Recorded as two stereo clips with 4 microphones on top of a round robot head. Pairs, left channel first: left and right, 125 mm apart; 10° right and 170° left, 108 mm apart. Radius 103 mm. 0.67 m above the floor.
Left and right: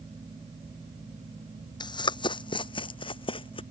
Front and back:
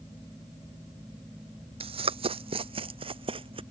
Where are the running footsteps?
145° left; by 3.6 s 135° left.